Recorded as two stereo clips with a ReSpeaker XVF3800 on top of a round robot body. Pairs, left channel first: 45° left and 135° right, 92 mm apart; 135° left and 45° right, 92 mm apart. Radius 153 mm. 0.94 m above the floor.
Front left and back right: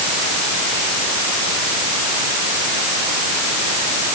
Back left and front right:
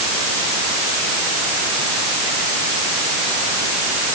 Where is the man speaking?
I don't hear a man speaking.